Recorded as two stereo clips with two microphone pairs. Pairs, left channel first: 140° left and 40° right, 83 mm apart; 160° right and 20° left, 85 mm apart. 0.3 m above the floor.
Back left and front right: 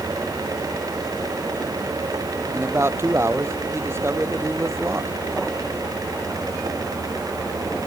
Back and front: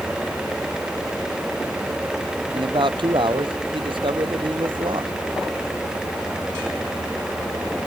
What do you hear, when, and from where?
2.5 s a man speaking: 15° left